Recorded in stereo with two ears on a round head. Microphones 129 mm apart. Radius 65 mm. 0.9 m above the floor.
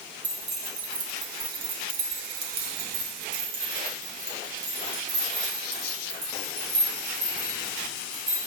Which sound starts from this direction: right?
Keys jangling, at 0.2 s.